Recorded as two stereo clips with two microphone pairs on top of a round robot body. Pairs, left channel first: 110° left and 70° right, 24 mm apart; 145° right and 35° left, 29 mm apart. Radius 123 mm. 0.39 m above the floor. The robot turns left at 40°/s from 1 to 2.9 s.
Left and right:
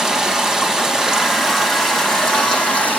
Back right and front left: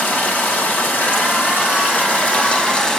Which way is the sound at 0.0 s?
130° right.